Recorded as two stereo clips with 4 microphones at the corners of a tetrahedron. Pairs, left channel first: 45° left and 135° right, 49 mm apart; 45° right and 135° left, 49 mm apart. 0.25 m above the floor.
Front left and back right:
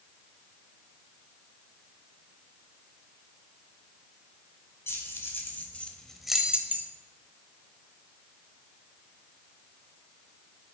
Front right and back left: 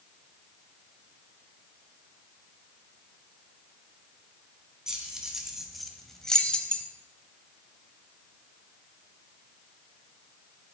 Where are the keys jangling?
60° left, 1.5 m; by 6.8 s 105° right, 1.0 m.